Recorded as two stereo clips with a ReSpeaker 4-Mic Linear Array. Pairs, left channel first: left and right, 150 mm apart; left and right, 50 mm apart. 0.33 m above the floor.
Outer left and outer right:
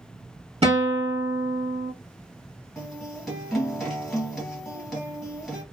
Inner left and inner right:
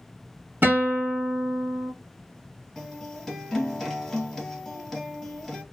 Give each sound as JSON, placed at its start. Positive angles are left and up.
{"t": 0.6, "sound": "a guitar", "side_deg": -45, "distance_m": 1.1}
{"t": 2.8, "sound": "a guitar", "side_deg": 0, "distance_m": 1.8}